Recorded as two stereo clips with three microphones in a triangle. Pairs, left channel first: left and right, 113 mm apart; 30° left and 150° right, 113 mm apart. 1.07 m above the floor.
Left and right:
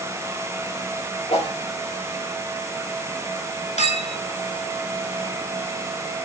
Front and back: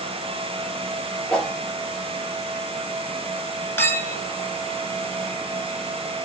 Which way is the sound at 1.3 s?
115° left.